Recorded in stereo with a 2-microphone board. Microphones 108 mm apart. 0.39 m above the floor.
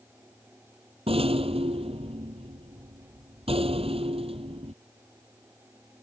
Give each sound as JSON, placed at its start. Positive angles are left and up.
{"t": 1.1, "sound": "a rattle", "side_deg": -70}